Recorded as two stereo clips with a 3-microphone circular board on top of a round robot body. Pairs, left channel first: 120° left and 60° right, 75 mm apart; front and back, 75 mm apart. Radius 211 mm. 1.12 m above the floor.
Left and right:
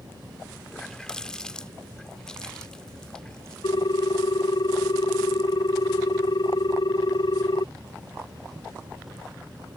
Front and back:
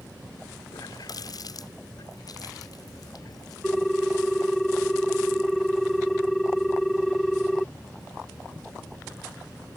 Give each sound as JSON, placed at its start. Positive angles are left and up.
{"t": 0.7, "sound": "a running tap", "azimuth_deg": 40}
{"t": 3.6, "sound": "a ringtone", "azimuth_deg": 85}